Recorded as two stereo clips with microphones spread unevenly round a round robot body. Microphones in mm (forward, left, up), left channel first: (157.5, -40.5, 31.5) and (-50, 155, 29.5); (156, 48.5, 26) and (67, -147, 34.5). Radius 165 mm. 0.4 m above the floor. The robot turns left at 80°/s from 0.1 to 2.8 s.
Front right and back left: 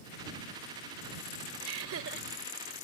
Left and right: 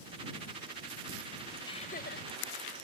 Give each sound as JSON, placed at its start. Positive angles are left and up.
{"t": 1.6, "sound": "laughter", "azimuth_deg": 140}